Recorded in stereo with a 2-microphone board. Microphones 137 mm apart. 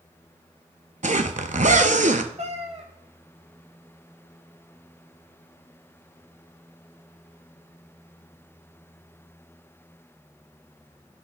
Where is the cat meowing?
50° right (ahead or behind), 0.9 m.